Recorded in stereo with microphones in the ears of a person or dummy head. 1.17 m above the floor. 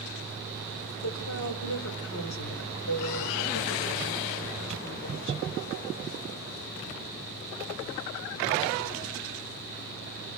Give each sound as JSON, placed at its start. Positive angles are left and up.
{"t": 1.0, "sound": "a woman speaking", "side_deg": 85, "distance_m": 3.0}